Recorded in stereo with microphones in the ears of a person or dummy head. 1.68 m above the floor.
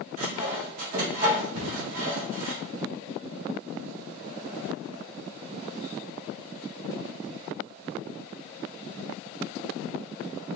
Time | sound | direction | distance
0.2 | sawing | 50° right (ahead or behind) | 1.3 m
1.5 | a cupboard door | 65° right (ahead or behind) | 1.8 m